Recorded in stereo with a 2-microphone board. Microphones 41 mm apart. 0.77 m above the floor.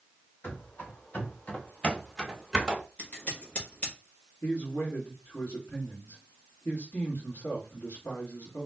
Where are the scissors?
40° left (ahead or behind), 1.5 m.